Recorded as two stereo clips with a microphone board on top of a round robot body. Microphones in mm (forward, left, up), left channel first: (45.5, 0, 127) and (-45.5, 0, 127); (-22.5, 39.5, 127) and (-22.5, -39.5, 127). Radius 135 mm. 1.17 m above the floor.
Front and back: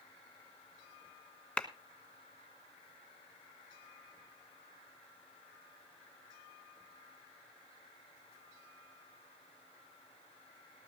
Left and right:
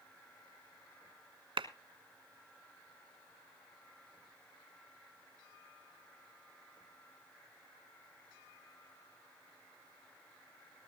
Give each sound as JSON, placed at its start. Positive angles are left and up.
{"t": 1.6, "sound": "a clap", "azimuth_deg": -75, "distance_m": 1.3}